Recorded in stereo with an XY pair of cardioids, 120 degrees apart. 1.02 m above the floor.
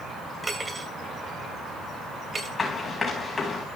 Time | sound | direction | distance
0.4 | cutlery clinking | 20° right | 2.5 m
2.6 | running footsteps | 25° left | 5 m